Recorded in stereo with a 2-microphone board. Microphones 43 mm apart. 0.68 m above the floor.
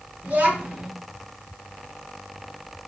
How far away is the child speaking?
About 1.4 m.